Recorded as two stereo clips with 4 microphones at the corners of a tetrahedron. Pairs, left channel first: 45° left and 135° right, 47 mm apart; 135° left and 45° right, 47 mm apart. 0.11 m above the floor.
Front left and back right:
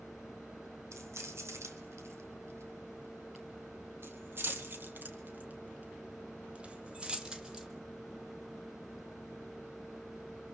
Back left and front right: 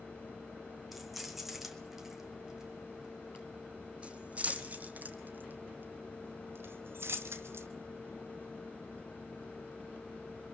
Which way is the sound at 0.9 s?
130° right.